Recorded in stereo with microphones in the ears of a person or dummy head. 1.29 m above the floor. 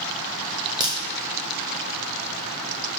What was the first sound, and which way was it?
A crack, 20° right (ahead or behind).